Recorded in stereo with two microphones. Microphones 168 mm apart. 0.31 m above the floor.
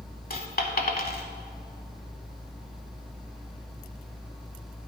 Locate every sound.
0.3 s a dropped coin: 55° left (ahead or behind), 0.8 m